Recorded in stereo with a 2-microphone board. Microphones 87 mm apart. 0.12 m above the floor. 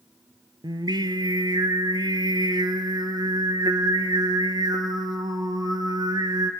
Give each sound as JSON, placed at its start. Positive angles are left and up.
{"t": 0.6, "sound": "singing", "side_deg": -55, "distance_m": 0.9}